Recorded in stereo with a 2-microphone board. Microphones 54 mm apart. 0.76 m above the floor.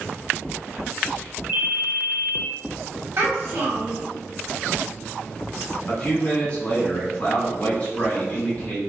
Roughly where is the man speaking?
Left.